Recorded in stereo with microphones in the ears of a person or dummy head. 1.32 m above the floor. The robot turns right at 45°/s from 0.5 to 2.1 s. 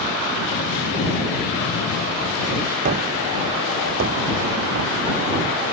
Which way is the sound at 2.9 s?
45° right (ahead or behind).